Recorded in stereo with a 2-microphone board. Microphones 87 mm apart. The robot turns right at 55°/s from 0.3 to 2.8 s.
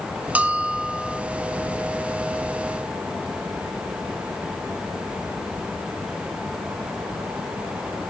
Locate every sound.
0.3 s a bell: 15° right (ahead or behind), 0.9 m; by 1.2 s centre (ahead or behind), 0.9 m